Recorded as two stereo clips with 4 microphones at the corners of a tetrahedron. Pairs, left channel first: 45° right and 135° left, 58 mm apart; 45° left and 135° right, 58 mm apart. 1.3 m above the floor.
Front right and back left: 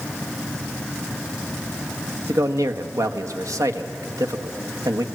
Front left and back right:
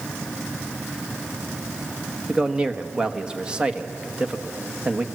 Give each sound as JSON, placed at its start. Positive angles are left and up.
{"t": 2.3, "sound": "a man speaking", "azimuth_deg": 155, "distance_m": 1.3}